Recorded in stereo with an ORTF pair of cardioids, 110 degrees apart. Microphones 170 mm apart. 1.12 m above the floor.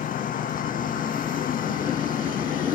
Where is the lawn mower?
55° left.